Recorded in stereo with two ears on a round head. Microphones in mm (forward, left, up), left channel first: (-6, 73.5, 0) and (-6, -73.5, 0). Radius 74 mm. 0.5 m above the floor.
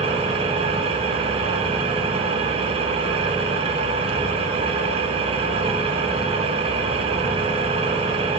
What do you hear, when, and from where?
0.0 s an engine running: 35° right (ahead or behind), 1.2 m